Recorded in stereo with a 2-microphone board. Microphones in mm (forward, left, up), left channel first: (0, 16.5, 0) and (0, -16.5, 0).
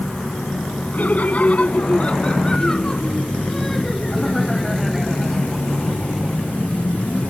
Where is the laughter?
60° left (ahead or behind); by 6.6 s 10° right (ahead or behind).